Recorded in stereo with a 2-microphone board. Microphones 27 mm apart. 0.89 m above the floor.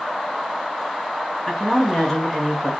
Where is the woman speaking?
15° left (ahead or behind), 1.1 m.